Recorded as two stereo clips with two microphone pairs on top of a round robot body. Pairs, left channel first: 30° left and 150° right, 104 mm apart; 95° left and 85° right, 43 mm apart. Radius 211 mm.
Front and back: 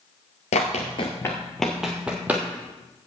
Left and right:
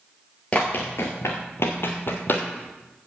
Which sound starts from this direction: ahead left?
Running footsteps, at 0.5 s.